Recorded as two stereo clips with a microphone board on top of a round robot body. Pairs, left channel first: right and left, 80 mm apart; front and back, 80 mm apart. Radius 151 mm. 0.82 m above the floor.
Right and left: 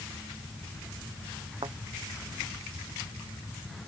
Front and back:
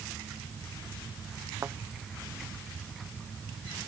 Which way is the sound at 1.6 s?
120° left.